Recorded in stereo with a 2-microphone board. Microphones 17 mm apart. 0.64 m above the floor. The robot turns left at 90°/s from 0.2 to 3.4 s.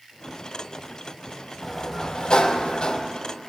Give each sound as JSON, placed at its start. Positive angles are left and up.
{"t": 1.6, "sound": "a sliding door", "azimuth_deg": 175, "distance_m": 0.7}